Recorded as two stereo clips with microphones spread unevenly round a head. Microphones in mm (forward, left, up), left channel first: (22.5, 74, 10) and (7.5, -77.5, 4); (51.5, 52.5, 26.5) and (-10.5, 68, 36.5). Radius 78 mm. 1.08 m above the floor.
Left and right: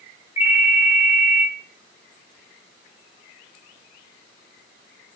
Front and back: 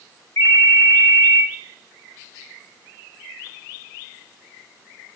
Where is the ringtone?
30° left, 4 m.